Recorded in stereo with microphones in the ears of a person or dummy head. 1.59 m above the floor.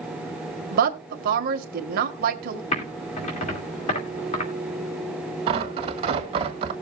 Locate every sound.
0.7 s a woman speaking: 50° right (ahead or behind), 1.8 m
2.7 s typing on a keyboard: 30° left (ahead or behind), 3 m
5.5 s tearing paper: 30° right (ahead or behind), 1.9 m